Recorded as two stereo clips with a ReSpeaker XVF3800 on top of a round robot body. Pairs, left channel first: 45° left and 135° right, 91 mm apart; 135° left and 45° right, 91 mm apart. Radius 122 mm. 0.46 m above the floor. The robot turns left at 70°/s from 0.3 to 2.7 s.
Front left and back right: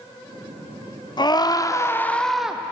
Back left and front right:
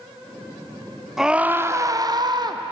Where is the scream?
40° left, 1.4 m; by 2.6 s 60° right, 1.4 m.